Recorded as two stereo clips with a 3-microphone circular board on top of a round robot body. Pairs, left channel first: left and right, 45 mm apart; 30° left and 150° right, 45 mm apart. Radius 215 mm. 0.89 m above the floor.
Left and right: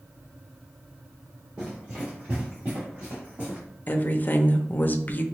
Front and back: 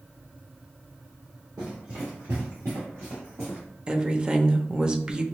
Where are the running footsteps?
165° right, 1.2 m; by 3.6 s 140° right, 2.5 m.